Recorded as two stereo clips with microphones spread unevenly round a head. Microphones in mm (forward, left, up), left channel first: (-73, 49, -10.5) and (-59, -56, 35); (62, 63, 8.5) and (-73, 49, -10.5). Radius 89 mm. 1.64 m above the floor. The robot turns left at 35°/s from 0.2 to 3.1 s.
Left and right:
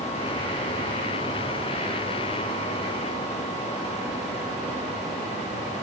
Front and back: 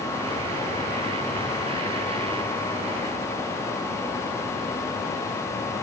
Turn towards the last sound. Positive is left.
No sound to turn to.